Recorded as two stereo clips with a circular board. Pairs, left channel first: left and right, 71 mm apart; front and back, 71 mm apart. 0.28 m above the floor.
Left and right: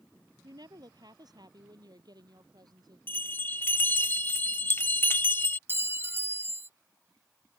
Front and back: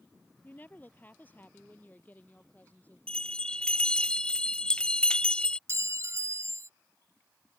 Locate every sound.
0.4 s a woman speaking: 65° right
3.1 s a bell: 65° left
5.7 s a clink: 145° right